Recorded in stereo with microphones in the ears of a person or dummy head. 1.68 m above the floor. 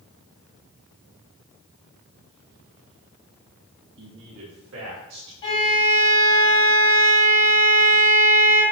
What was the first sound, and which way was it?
A man speaking, 65° right (ahead or behind).